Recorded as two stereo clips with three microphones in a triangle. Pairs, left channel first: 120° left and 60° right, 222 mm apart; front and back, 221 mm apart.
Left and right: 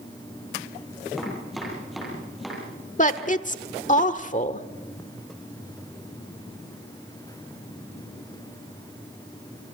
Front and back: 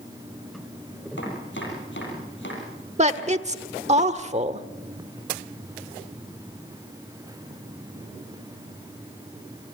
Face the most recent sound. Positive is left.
turn(degrees=145)